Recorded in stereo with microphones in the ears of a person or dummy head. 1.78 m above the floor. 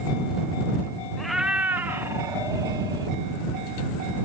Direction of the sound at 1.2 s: Centre (ahead or behind).